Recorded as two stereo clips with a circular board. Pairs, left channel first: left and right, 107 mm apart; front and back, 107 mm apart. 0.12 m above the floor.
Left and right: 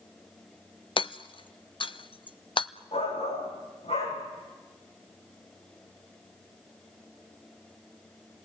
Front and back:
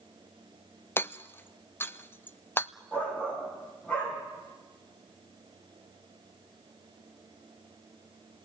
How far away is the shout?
About 9 m.